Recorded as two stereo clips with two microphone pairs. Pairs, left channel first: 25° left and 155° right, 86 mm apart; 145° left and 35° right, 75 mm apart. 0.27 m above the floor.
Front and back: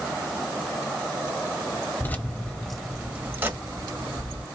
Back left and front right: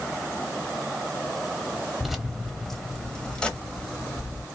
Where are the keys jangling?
50° left, 1.0 m; by 4.5 s 150° right, 1.3 m.